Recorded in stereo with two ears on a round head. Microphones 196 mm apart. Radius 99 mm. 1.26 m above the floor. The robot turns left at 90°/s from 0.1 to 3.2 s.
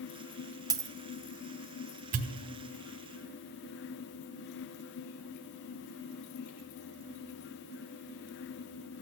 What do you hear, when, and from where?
0.7 s a dropped coin: 15° right (ahead or behind), 0.5 m; by 0.9 s 10° right (ahead or behind), 0.5 m
2.1 s a pop: 35° right (ahead or behind), 0.9 m; by 2.4 s 55° right (ahead or behind), 0.9 m